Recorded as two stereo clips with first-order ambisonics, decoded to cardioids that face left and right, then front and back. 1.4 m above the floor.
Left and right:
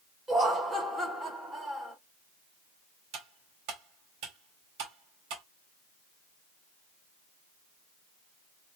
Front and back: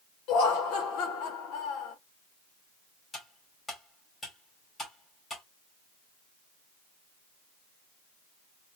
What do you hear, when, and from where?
0.3 s laughter: 15° right, 1.9 m
3.1 s cutlery clinking: 75° right, 2.5 m